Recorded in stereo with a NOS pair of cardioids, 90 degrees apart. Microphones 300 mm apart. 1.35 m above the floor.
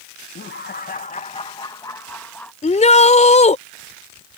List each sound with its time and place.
0.3 s laughter: 40° left; by 2.5 s 5° left
2.6 s a shout: 20° left